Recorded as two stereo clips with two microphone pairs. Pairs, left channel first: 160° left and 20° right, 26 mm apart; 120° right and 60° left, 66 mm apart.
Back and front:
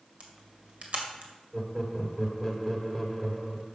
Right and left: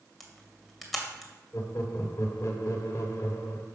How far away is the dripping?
No dripping in this recording.